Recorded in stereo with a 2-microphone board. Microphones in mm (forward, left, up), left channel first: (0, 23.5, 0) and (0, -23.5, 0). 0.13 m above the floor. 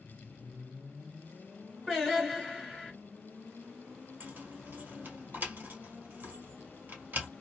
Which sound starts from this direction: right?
Keys jangling, at 4.2 s.